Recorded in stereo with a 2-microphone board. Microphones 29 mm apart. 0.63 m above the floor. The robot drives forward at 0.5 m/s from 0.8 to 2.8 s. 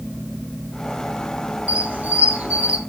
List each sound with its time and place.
1.7 s a squeak: 55° right (ahead or behind), 1.0 m